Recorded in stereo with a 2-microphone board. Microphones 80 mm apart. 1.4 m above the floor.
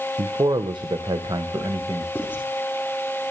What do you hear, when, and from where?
0.2 s a man speaking: 75° right (ahead or behind), 1.2 m; by 2.0 s 55° right (ahead or behind), 2 m
2.1 s writing: 20° left (ahead or behind), 5.5 m